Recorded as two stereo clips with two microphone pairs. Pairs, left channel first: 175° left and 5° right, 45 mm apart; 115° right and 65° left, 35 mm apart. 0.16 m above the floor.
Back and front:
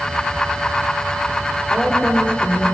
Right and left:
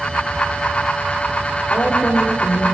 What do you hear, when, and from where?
1.7 s a woman speaking: 120° right, 4 m